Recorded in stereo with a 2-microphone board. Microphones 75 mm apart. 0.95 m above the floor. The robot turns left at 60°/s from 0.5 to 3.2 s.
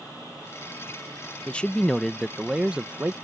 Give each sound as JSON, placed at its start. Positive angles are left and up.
{"t": 1.5, "sound": "a man speaking", "side_deg": 15}